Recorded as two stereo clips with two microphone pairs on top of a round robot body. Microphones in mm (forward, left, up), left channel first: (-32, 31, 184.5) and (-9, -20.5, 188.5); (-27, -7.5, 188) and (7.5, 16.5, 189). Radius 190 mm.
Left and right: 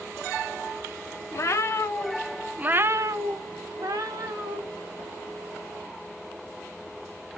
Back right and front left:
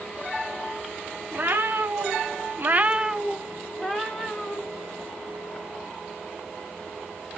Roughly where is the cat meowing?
Left.